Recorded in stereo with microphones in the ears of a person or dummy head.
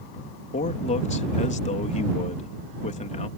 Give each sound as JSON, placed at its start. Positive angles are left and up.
{"t": 0.5, "sound": "a man speaking", "side_deg": 35}